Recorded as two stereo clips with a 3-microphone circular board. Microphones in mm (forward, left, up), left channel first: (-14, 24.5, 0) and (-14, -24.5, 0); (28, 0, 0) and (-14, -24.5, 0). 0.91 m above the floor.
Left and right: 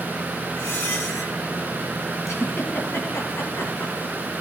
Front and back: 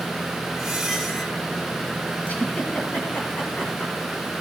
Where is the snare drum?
I don't hear a snare drum.